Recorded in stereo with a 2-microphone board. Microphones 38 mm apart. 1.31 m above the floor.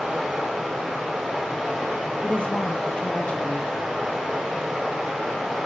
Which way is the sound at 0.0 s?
5° right (ahead or behind).